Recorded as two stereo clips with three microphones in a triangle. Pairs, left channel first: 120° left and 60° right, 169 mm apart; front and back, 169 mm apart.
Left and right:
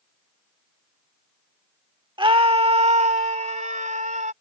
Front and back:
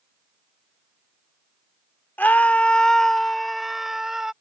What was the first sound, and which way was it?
A scream, 70° right.